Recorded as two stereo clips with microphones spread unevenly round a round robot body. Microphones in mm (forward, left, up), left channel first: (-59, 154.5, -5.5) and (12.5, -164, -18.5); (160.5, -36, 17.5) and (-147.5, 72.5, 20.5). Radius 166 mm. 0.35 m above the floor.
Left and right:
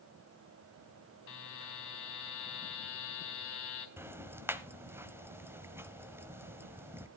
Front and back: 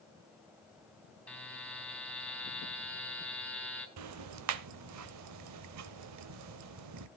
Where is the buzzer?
65° left, 3.5 m.